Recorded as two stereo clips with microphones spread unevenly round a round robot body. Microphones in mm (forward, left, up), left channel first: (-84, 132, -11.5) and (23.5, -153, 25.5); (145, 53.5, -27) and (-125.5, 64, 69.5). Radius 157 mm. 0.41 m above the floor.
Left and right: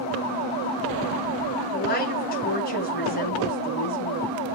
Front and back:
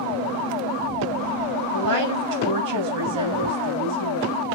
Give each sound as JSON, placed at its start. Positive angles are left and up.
{"t": 1.7, "sound": "a woman speaking", "azimuth_deg": 170, "distance_m": 3.5}